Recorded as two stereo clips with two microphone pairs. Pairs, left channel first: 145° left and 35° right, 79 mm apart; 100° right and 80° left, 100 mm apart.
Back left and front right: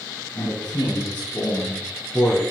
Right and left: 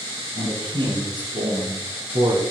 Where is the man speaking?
90° left, 5 m; by 2.4 s 70° left, 3 m.